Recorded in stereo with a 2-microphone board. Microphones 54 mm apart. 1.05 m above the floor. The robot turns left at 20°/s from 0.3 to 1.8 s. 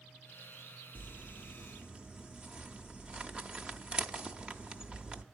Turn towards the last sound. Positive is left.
turn(degrees=-15)  # may be behind; listen again after turning